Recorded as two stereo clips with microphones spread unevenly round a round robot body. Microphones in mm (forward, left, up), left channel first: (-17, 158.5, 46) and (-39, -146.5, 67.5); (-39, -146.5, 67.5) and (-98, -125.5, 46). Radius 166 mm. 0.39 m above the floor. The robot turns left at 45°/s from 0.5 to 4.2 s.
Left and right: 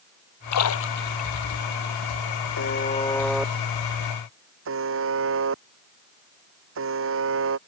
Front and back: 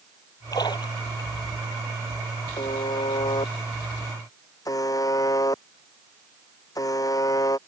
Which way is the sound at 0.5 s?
50° left.